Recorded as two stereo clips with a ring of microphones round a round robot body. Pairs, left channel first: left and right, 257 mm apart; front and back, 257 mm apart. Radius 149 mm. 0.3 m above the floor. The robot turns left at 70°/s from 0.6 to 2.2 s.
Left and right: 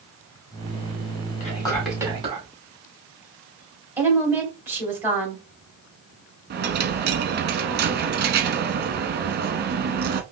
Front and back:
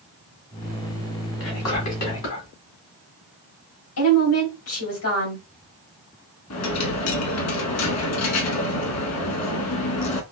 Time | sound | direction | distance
1.4 | whispering | 35° left | 2.5 m
4.0 | a woman speaking | 10° right | 2.5 m
6.5 | a dropped coin | 35° right | 0.8 m